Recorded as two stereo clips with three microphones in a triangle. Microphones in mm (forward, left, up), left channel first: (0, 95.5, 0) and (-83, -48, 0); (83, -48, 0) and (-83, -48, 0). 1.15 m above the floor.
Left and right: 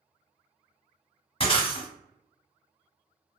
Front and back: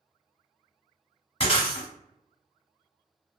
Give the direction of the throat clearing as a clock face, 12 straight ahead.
No throat clearing in this recording.